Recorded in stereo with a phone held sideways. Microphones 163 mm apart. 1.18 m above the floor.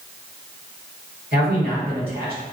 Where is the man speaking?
80° right, 1.4 m.